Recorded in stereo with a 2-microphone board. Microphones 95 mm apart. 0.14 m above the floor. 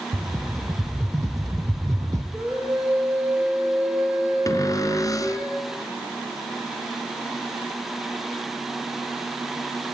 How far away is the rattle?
About 2.5 m.